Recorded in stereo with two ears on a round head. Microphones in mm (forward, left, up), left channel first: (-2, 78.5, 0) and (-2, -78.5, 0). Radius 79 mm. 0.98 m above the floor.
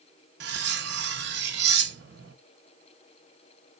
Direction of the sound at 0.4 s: 65° right (ahead or behind).